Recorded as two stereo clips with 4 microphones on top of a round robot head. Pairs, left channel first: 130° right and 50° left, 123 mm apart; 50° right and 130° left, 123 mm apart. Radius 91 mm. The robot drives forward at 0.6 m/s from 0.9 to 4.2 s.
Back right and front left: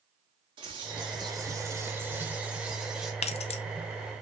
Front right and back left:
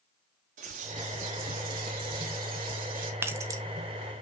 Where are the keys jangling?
160° right, 0.5 m; by 3.6 s 170° right, 0.7 m.